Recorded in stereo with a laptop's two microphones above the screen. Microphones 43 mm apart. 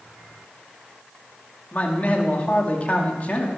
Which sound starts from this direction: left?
A man speaking, at 1.7 s.